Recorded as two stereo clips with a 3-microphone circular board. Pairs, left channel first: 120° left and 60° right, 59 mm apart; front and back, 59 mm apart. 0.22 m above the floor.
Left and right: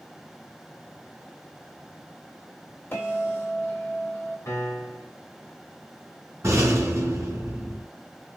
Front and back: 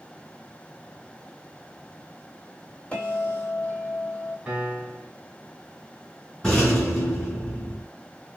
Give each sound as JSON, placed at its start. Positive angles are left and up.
{"t": 2.9, "sound": "a bell", "azimuth_deg": 65, "distance_m": 1.5}
{"t": 4.5, "sound": "a piano", "azimuth_deg": 110, "distance_m": 1.3}
{"t": 6.4, "sound": "a rattle", "azimuth_deg": -85, "distance_m": 2.5}